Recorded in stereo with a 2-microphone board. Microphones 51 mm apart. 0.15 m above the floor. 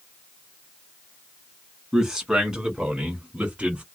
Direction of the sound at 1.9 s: 10° right (ahead or behind).